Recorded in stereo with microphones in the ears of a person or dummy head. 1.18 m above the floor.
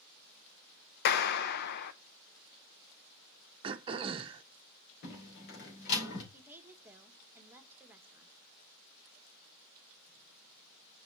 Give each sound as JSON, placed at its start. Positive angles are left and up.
{"t": 1.1, "sound": "a clap", "side_deg": 60, "distance_m": 0.7}
{"t": 3.6, "sound": "throat clearing", "side_deg": -30, "distance_m": 0.8}
{"t": 5.0, "sound": "a door slam", "side_deg": 65, "distance_m": 4.0}
{"t": 6.3, "sound": "a woman speaking", "side_deg": -15, "distance_m": 1.4}